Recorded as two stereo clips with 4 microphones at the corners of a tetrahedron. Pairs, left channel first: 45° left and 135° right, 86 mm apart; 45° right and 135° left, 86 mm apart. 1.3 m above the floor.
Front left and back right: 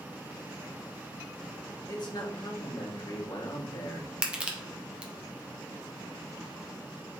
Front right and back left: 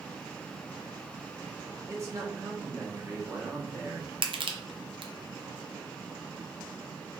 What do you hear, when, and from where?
1.9 s a man speaking: 80° left, 1.3 m
4.2 s crushing: 150° left, 0.7 m